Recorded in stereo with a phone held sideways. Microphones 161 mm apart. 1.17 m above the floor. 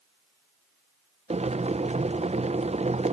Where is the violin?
I don't hear a violin.